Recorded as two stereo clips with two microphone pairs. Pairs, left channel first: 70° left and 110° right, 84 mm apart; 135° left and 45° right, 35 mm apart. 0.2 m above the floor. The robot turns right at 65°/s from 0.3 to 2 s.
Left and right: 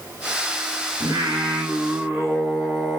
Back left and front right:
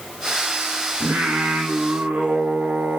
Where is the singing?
85° right, 1.4 m; by 3.0 s 20° right, 1.4 m.